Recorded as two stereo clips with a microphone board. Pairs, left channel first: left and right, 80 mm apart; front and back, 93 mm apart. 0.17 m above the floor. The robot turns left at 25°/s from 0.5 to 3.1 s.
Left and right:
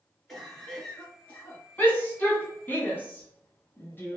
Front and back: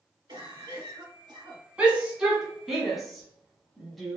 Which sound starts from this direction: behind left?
A shout, at 1.8 s.